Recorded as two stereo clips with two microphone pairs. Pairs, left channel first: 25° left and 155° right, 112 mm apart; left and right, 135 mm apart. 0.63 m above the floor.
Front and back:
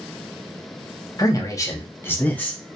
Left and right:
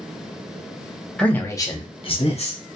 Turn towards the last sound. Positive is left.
turn(degrees=110)